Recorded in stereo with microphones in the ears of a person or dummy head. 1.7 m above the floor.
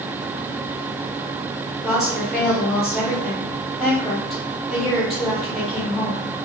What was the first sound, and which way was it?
A woman speaking, 5° right (ahead or behind).